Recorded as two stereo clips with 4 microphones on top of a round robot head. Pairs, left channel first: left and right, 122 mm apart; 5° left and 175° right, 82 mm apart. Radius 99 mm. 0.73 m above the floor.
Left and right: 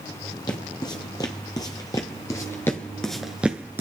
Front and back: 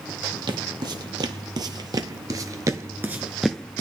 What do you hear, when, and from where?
0.5 s footsteps: 155° left, 1.8 m; by 3.8 s 40° right, 0.7 m